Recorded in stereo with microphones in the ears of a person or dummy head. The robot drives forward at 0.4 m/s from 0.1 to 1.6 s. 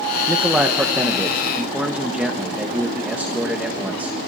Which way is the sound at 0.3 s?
5° right (ahead or behind).